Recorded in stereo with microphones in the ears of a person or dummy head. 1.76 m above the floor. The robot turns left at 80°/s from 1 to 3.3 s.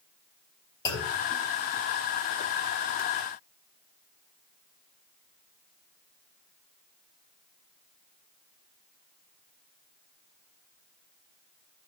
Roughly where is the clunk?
Centre.